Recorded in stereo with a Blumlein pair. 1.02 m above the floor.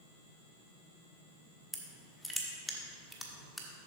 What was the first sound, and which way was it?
Crushing, straight ahead.